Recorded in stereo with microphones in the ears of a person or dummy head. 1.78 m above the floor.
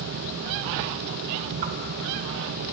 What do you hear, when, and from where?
1.6 s a whoosh: 45° right (ahead or behind), 1.0 m